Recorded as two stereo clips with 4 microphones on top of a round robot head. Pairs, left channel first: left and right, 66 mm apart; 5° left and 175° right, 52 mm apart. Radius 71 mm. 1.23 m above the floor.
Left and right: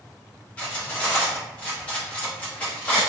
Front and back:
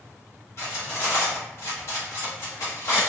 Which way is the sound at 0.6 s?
25° left.